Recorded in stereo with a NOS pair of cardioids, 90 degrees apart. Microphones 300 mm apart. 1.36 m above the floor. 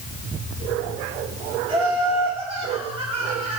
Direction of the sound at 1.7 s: 20° right.